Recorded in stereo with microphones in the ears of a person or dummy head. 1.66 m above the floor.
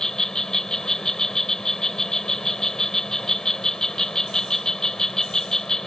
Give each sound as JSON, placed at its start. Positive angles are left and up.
{"t": 0.0, "sound": "an insect", "side_deg": 5}